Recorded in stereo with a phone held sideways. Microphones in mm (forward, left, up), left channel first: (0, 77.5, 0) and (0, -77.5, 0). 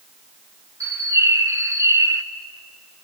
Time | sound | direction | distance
0.8 | a bird | 20° right (ahead or behind) | 1.0 m